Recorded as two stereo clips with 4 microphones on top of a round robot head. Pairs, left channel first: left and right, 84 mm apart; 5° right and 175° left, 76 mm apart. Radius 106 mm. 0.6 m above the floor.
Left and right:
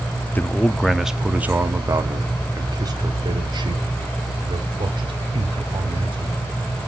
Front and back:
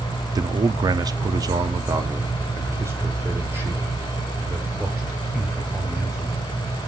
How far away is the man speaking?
About 0.9 m.